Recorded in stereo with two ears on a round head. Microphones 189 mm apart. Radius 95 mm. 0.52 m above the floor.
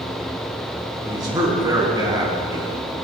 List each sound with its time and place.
1.0 s a man speaking: 20° right (ahead or behind), 4.5 m